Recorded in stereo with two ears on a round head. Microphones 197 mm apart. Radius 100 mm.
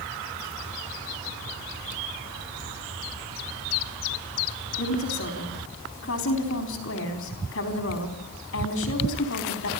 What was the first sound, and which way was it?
A woman speaking, 65° left (ahead or behind).